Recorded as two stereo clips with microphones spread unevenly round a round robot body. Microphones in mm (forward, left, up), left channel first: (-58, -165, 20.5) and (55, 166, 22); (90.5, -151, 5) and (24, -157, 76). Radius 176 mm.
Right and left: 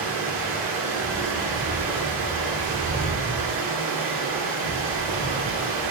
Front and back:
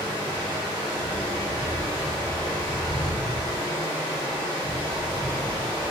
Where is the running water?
110° left, 1.7 m.